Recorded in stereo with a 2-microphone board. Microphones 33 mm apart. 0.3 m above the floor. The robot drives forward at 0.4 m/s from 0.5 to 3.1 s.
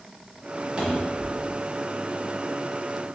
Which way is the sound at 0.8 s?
30° right (ahead or behind).